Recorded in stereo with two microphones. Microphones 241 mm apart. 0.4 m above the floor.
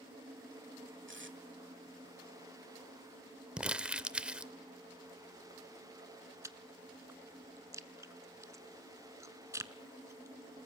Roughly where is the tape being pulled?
Right.